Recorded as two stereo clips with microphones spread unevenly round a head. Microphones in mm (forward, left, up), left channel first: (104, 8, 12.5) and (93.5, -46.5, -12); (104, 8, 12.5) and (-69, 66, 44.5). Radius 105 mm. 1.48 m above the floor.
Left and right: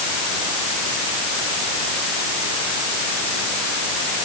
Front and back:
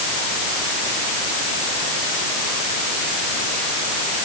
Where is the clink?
I don't hear a clink.